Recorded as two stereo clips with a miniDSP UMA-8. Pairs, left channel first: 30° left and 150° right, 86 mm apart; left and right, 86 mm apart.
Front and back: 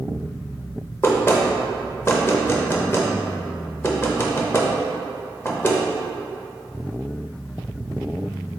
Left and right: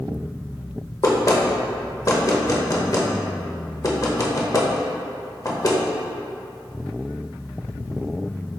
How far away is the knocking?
About 0.6 m.